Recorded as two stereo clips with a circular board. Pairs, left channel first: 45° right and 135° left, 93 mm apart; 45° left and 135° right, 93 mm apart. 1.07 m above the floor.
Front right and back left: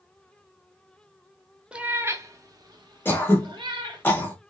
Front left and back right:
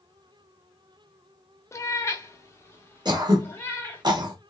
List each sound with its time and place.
1.7 s a cat meowing: 65° left, 0.6 m; by 4.0 s 110° left, 1.7 m
3.0 s throat clearing: 110° right, 1.3 m